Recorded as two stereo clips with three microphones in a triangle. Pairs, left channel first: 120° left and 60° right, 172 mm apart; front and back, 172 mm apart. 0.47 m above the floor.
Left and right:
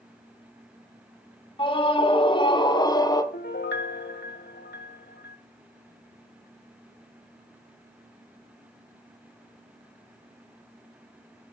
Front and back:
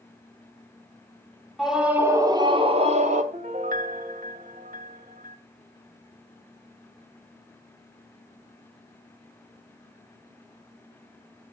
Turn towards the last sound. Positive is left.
turn(degrees=135)